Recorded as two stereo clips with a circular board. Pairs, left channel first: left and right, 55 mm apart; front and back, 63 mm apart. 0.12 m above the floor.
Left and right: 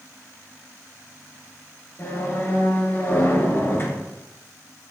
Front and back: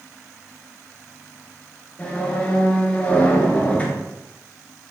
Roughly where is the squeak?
Ahead left.